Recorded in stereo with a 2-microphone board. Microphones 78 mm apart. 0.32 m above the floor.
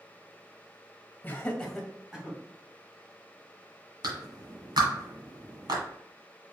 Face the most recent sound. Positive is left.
turn(degrees=-65)  # may be behind; listen again after turning